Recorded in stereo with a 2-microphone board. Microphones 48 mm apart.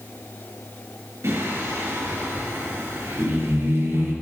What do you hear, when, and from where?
1.2 s singing: 80° right, 5.5 m